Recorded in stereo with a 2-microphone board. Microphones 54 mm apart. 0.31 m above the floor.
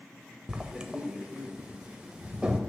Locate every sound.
0.5 s writing: 15° right (ahead or behind), 0.6 m